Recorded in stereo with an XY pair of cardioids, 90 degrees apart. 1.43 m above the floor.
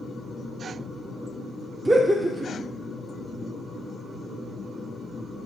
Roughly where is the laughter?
Ahead.